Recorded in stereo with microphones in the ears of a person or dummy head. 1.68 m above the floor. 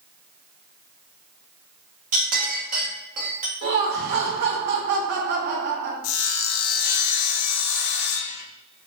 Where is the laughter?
55° right (ahead or behind), 1.0 m.